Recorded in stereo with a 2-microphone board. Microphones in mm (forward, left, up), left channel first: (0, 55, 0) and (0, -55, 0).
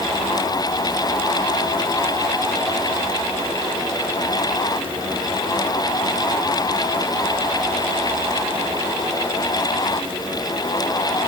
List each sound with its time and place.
Only background noise.